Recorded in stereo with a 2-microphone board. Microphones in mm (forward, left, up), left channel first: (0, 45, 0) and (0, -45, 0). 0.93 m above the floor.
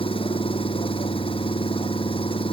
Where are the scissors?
I don't hear scissors.